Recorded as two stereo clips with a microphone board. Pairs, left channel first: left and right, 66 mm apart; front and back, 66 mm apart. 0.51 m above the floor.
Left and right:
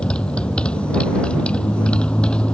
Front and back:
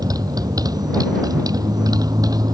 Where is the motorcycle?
165° left.